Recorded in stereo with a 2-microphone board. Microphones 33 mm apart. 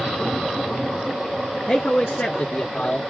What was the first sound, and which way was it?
A man speaking, 40° left (ahead or behind).